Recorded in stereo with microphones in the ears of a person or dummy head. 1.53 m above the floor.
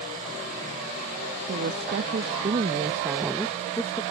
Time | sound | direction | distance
1.5 | a woman speaking | 55° right (ahead or behind) | ?